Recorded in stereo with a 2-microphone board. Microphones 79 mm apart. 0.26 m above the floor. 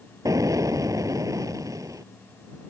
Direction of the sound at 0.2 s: 45° right (ahead or behind).